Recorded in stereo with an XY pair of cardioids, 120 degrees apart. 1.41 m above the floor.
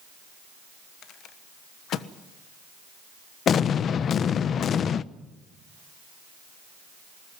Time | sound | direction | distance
1.0 | a rattle | 65° left | 1.3 m
3.5 | an explosion | 50° left | 0.7 m